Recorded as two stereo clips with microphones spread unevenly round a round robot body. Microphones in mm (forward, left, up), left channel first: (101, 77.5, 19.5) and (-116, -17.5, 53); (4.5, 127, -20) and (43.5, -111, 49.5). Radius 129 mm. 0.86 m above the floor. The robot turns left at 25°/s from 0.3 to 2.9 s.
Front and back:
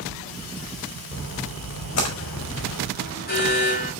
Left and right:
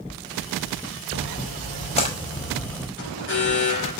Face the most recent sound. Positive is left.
turn(degrees=70)